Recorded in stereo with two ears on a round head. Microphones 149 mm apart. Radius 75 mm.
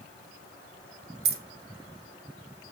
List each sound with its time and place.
1.2 s keys jangling: 60° right (ahead or behind), 1.1 m